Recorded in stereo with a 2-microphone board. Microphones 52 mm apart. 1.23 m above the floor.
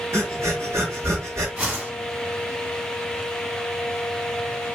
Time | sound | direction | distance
0.1 | breathing | 60° right (ahead or behind) | 1.1 m
1.6 | a whoosh | 25° right (ahead or behind) | 1.5 m